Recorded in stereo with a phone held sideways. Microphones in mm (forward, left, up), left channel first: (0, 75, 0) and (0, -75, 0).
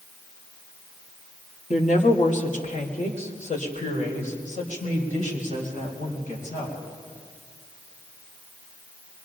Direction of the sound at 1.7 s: 55° left (ahead or behind).